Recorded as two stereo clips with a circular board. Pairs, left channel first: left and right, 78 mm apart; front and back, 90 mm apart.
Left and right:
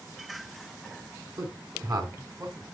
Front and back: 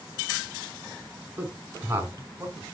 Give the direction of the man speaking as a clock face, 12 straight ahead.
4 o'clock.